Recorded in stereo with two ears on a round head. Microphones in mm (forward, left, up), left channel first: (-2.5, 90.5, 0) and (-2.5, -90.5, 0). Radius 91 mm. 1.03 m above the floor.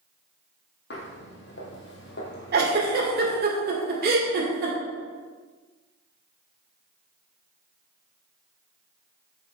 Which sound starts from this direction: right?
A giggle, at 2.5 s.